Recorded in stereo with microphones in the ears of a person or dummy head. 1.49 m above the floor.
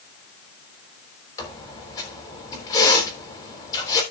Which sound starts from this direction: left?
A squeak, at 1.4 s.